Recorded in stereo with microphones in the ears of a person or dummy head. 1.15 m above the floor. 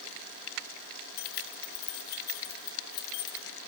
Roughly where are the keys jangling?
Left.